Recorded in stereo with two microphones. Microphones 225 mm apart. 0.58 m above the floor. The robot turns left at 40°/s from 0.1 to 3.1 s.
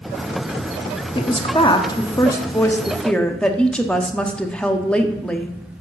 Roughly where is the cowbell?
No cowbell in this recording.